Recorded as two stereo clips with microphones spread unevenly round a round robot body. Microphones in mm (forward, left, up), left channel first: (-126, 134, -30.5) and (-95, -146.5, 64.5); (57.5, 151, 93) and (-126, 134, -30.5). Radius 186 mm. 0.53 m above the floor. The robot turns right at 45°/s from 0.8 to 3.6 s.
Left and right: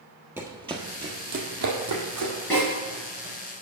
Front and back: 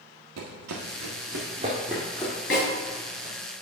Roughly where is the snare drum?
Ahead.